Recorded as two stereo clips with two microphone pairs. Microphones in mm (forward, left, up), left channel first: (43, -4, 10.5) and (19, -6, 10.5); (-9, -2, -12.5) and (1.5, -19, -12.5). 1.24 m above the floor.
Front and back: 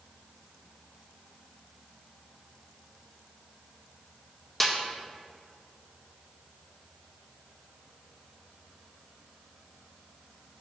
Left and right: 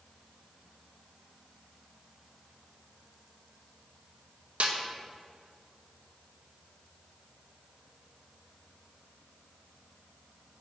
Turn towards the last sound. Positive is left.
turn(degrees=-75)